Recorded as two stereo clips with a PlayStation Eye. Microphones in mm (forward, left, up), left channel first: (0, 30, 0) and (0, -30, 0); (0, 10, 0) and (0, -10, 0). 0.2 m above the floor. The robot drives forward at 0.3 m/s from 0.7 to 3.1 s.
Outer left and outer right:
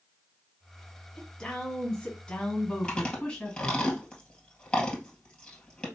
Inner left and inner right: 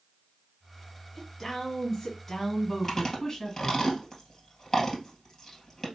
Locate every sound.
1.2 s a woman speaking: 15° left (ahead or behind), 1.6 m
2.8 s chewing: 15° left (ahead or behind), 1.7 m